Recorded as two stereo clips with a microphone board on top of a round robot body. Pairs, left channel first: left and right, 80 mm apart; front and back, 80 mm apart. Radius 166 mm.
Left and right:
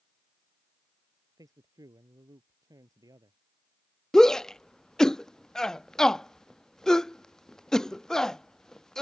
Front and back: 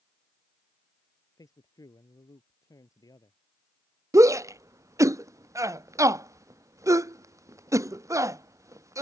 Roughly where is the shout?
Behind.